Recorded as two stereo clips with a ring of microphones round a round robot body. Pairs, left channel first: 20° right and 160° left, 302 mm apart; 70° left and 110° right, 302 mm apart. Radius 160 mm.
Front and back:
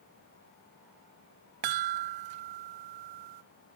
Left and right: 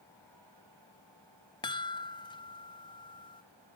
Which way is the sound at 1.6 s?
145° left.